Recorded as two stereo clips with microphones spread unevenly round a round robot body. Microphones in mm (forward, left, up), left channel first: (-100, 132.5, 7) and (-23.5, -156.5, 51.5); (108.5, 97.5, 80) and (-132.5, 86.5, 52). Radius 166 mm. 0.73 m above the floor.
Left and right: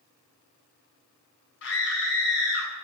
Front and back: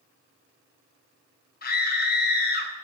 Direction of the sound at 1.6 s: 50° left.